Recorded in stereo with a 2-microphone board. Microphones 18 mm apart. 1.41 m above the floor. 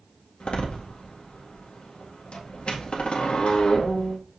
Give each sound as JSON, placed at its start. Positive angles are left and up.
{"t": 0.4, "sound": "a door slam", "side_deg": 65, "distance_m": 1.8}